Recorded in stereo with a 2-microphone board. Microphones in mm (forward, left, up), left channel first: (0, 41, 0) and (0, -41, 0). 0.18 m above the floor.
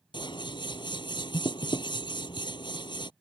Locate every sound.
0.1 s scissors: 80° left